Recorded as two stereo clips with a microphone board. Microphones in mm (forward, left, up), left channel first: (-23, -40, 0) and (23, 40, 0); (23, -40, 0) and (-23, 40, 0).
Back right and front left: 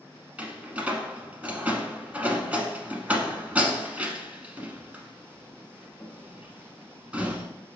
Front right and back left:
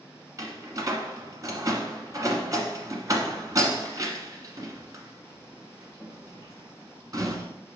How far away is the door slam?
About 1.0 m.